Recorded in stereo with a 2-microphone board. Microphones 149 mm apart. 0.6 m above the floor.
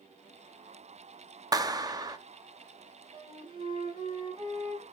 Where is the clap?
25° right (ahead or behind), 0.6 m.